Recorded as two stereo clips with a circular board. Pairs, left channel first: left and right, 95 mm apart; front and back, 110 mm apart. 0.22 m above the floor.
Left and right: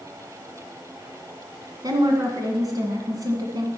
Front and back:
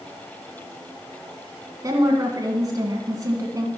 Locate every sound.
1.8 s a woman speaking: 130° right, 1.7 m